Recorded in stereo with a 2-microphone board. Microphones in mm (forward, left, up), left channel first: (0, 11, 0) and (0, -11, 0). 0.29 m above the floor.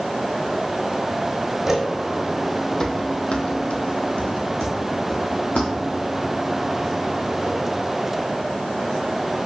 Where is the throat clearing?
No throat clearing in this recording.